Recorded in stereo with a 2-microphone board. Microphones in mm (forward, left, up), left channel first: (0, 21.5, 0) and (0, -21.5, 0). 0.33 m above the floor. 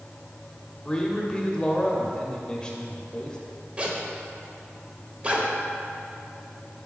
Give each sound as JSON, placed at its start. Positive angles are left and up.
{"t": 0.8, "sound": "a man speaking", "side_deg": 20, "distance_m": 1.1}
{"t": 3.8, "sound": "a zipper", "side_deg": -25, "distance_m": 1.1}